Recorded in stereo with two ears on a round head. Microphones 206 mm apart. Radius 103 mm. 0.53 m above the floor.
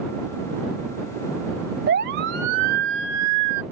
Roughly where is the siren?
Right.